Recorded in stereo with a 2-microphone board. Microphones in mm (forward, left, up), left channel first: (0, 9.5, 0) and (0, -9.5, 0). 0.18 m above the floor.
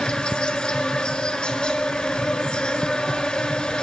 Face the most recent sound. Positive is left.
turn(degrees=55)  # may be behind; listen again after turning